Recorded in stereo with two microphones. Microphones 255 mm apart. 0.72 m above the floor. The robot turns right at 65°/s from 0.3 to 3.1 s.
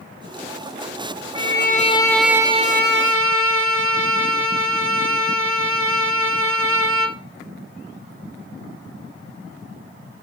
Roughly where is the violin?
Behind left.